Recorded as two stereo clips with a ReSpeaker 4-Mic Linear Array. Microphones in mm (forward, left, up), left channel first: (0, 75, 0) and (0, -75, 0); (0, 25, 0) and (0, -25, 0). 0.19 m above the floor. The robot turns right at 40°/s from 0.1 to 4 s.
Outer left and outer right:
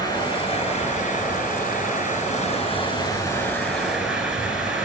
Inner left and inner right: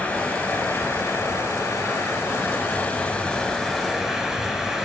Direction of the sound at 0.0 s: 25° left.